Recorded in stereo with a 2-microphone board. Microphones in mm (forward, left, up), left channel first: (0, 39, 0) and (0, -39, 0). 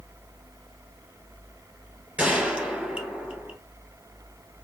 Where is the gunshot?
15° right (ahead or behind), 1.2 m.